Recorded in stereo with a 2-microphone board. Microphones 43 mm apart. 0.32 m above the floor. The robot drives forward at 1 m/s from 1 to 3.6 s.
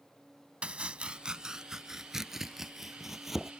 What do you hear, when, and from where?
0.6 s chopping: 30° right (ahead or behind); by 3.5 s 5° right (ahead or behind)